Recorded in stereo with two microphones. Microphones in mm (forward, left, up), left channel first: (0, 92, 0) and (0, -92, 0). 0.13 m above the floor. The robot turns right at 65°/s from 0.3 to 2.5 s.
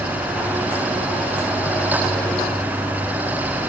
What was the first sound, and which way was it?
Only background noise.